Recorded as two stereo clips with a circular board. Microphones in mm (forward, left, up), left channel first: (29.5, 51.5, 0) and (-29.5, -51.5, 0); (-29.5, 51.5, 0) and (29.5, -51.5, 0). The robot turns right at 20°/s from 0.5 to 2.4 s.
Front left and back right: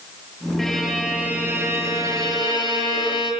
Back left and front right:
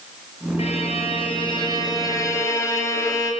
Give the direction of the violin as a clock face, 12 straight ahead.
7 o'clock.